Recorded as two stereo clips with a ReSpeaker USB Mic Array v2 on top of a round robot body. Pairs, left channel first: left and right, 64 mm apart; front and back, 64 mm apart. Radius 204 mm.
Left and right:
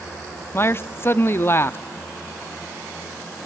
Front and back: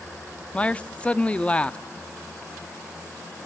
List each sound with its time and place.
0.5 s a man speaking: 60° left, 1.0 m